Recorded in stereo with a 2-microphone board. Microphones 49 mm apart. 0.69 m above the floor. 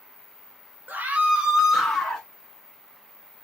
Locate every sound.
0.9 s a scream: 40° right (ahead or behind), 0.9 m; by 2.3 s 20° left (ahead or behind), 1.1 m